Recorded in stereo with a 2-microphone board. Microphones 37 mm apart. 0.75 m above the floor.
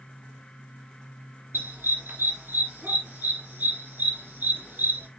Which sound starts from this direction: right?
A dog barking, at 1.5 s.